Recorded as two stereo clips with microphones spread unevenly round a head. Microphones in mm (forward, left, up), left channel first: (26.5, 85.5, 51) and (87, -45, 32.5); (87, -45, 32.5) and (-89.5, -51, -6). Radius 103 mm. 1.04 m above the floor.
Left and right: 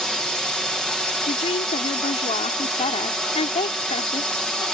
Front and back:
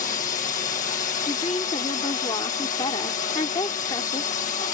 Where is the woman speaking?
70° left.